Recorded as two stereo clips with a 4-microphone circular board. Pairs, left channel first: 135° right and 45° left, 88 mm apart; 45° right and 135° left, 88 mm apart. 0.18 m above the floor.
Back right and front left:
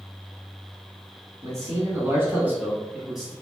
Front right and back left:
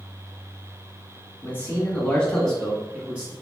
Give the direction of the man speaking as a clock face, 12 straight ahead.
12 o'clock.